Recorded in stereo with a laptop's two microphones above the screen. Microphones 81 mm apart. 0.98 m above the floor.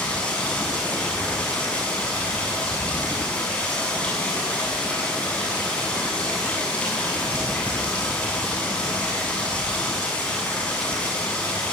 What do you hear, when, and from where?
0.0 s running water: 15° left (ahead or behind), 7.5 m